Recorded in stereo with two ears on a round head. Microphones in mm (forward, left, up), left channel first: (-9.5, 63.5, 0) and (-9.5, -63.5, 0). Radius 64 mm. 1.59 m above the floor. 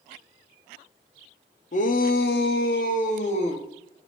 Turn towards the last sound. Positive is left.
turn(degrees=45)  # may be behind; listen again after turning